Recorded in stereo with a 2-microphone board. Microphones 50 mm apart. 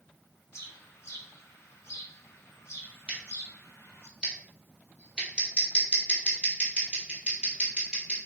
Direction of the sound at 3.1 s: 20° right (ahead or behind).